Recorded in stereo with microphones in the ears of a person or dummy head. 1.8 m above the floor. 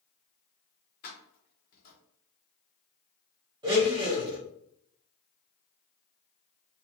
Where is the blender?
20° right (ahead or behind), 0.9 m.